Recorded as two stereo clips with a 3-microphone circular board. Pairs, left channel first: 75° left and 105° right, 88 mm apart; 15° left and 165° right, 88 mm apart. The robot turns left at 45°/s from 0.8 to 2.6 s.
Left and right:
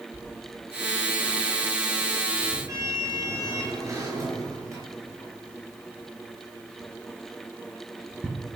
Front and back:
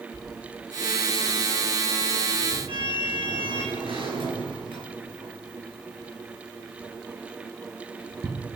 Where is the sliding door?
80° right, 5 m; by 8.3 s 160° right, 5 m.